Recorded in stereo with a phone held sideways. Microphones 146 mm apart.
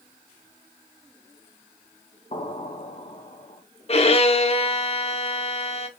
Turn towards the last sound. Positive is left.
turn(degrees=45)  # may be behind; listen again after turning